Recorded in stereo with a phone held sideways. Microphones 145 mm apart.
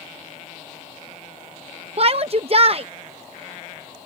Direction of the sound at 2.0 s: 45° right (ahead or behind).